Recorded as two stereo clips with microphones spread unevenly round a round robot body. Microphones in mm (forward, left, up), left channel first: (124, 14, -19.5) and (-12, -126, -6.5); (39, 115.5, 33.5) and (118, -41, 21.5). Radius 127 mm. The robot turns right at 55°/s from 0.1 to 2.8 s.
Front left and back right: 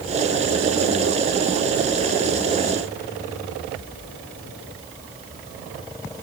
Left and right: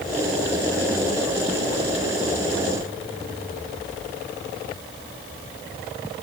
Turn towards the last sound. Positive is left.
No sound to turn to.